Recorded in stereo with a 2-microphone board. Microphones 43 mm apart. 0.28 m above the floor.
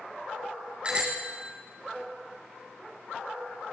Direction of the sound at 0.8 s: 25° right (ahead or behind).